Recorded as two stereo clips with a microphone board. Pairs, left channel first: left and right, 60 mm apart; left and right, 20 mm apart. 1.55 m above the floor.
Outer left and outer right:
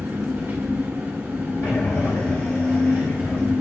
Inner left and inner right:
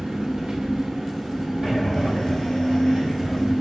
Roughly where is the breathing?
Left.